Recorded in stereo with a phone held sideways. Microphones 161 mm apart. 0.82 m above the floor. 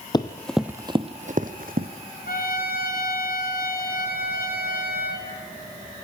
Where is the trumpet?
65° left (ahead or behind), 3 m.